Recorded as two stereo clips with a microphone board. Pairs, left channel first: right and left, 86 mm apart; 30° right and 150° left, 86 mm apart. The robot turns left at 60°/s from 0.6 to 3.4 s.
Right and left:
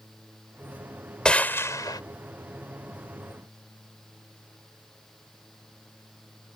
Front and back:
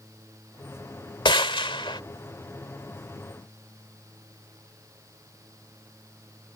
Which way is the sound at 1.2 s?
10° right.